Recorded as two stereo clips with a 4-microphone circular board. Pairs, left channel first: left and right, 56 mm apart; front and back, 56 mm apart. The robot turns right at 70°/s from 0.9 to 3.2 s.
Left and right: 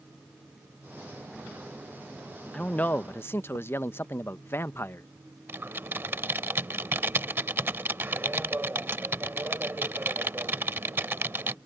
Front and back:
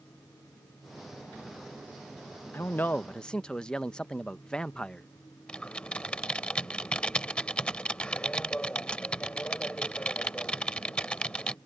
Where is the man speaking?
25° left; by 5.1 s 70° left.